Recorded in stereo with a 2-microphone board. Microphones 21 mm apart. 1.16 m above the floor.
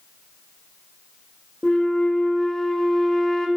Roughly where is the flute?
Left.